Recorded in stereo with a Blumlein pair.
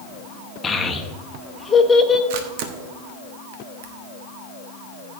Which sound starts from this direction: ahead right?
A camera shutter, at 2.3 s.